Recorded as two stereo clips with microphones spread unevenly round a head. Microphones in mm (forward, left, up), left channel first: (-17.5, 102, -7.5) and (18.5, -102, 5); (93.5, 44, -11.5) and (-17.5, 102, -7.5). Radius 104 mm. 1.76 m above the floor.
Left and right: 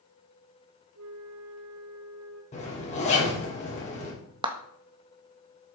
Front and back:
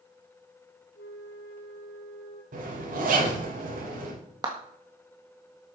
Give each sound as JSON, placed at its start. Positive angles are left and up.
{"t": 0.9, "sound": "a flute", "azimuth_deg": -60, "distance_m": 2.5}
{"t": 2.5, "sound": "a zipper", "azimuth_deg": 160, "distance_m": 4.5}
{"t": 4.4, "sound": "a clap", "azimuth_deg": -145, "distance_m": 1.6}